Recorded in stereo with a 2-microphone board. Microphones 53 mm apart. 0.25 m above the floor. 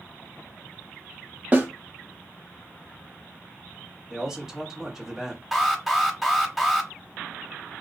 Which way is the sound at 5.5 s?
5° right (ahead or behind).